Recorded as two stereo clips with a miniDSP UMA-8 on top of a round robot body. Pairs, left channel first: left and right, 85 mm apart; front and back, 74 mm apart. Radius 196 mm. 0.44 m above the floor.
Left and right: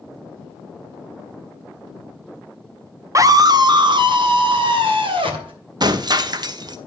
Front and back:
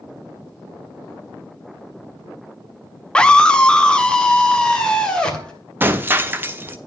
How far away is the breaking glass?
About 1.0 m.